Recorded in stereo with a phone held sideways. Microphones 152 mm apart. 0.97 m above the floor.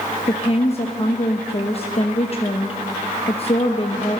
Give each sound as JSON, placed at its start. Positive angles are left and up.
{"t": 0.3, "sound": "a woman speaking", "side_deg": 40, "distance_m": 0.8}